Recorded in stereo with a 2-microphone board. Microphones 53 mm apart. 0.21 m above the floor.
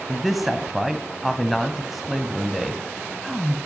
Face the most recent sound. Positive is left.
turn(degrees=-5)  # may be behind; listen again after turning